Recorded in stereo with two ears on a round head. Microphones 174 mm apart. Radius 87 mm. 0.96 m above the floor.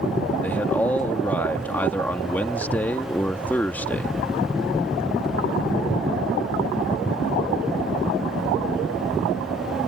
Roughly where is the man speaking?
Centre.